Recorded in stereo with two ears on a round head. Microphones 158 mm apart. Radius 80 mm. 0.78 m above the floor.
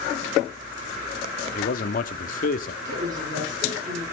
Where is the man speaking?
50° left (ahead or behind), 1.5 m.